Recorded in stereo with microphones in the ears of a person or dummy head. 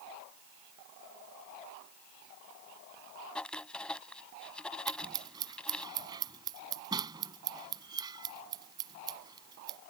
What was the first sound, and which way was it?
Writing, 5° left (ahead or behind).